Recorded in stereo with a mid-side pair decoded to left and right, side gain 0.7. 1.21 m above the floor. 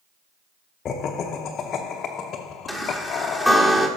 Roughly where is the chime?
Ahead.